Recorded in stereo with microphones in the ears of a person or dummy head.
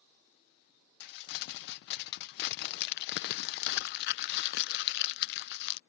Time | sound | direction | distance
1.0 | crumpling | 50° left (ahead or behind) | ?